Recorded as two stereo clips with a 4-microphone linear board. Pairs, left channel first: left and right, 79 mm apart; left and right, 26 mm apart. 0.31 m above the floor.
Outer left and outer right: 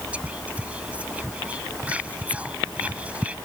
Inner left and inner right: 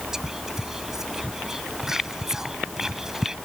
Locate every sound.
0.1 s whispering: 20° right (ahead or behind)